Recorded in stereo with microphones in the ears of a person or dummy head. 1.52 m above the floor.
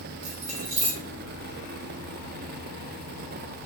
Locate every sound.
0.2 s keys jangling: 40° right (ahead or behind), 0.8 m